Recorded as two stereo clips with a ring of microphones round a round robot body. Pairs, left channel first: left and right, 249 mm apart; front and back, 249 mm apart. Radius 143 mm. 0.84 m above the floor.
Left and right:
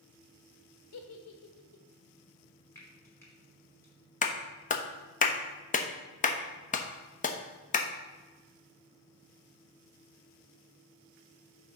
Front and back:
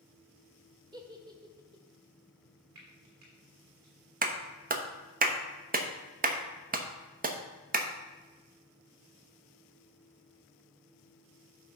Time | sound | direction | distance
0.9 | a giggle | 105° left | 1.2 m
2.8 | frying | 170° left | 3 m
4.2 | a clap | 140° left | 0.9 m